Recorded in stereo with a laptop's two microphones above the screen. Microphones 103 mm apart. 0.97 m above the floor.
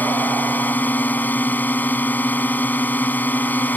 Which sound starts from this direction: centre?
A drone, at 0.0 s.